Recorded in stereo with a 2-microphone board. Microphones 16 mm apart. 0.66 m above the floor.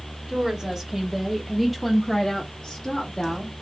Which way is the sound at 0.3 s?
35° right (ahead or behind).